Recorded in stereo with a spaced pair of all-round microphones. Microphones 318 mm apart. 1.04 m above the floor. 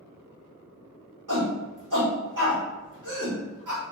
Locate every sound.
1.3 s a shout: 75° right (ahead or behind), 1.8 m